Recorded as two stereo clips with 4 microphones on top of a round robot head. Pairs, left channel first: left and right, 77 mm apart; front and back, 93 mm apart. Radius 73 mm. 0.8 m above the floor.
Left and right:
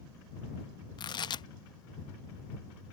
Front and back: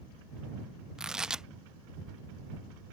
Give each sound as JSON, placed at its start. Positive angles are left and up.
{"t": 1.0, "sound": "tearing paper", "azimuth_deg": 95}